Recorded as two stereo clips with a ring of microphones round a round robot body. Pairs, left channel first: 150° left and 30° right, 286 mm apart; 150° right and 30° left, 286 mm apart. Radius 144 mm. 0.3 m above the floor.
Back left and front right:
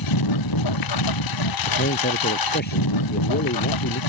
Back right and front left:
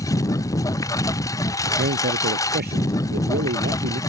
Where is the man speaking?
90° left.